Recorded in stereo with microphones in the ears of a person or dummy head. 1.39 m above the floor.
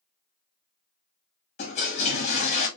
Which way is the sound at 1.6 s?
35° left (ahead or behind).